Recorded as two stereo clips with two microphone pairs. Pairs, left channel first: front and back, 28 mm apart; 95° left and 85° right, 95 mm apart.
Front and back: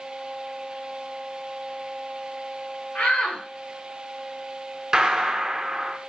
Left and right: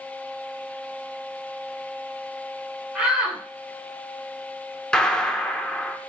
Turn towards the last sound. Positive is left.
turn(degrees=165)